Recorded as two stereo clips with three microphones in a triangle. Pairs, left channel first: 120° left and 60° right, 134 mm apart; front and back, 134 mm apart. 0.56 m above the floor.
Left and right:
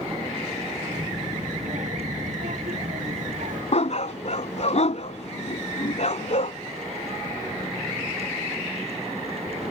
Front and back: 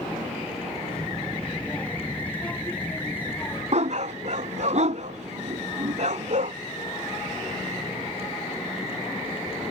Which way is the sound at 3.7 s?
150° left.